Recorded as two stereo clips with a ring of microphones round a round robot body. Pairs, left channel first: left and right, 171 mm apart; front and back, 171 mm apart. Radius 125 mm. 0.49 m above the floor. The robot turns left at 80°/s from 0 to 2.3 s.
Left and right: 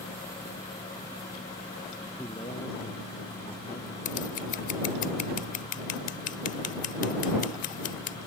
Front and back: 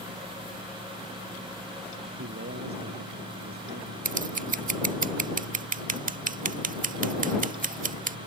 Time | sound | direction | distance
2.2 | a man speaking | 170° left | ?
4.0 | scissors | 140° left | ?